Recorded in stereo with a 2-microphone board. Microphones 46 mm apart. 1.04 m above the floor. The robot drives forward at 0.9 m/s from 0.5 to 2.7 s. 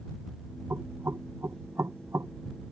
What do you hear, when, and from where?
0.7 s knocking: 65° right (ahead or behind); by 2.3 s 75° right (ahead or behind)